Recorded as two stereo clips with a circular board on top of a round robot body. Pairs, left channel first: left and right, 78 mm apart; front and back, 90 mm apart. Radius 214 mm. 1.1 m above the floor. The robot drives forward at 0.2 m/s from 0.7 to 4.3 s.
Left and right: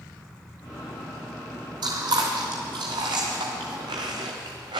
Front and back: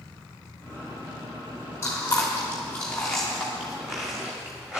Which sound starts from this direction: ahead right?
Chewing, at 1.8 s.